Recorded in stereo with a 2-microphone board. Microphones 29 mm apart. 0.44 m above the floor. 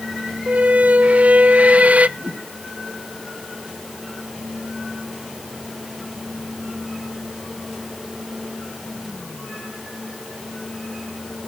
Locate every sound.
0.5 s a squeak: 55° right (ahead or behind), 0.8 m
2.2 s a whoosh: 35° right (ahead or behind), 4.5 m